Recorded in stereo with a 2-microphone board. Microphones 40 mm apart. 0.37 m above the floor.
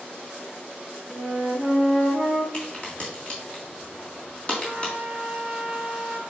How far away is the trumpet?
About 1.2 m.